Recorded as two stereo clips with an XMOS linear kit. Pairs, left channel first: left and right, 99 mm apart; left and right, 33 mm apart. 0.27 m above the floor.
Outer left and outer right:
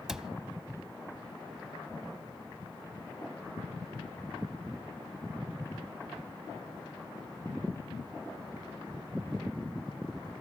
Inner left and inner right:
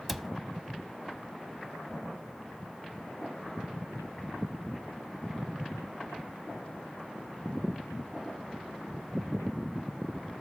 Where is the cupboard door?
5° right (ahead or behind), 0.5 m.